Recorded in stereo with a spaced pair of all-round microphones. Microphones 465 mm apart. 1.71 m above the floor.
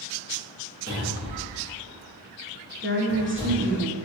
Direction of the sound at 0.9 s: 30° left (ahead or behind).